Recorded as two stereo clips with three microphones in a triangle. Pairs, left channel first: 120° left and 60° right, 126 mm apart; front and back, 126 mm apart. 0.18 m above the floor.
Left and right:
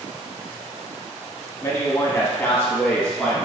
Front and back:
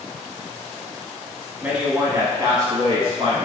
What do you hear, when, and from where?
1.6 s a man speaking: 110° left, 1.1 m; by 3.4 s 160° right, 1.4 m